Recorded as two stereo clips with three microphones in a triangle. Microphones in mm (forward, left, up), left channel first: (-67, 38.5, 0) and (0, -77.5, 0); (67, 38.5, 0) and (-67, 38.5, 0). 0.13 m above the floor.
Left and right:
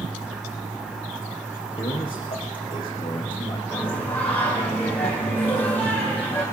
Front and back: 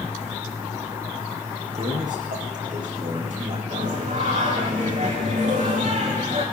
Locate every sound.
1.8 s a man speaking: 170° left, 4.5 m
3.7 s singing: 165° right, 8.5 m